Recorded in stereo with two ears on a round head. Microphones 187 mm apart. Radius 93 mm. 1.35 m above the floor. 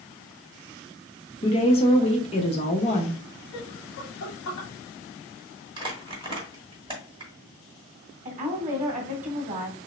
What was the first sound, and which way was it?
A woman speaking, 30° left (ahead or behind).